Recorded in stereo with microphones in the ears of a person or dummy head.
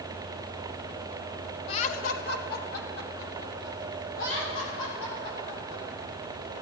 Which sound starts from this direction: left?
Laughter, at 1.7 s.